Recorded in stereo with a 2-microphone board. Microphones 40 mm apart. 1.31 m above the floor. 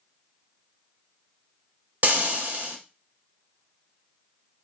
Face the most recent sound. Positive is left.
turn(degrees=-40)  # may be behind; listen again after turning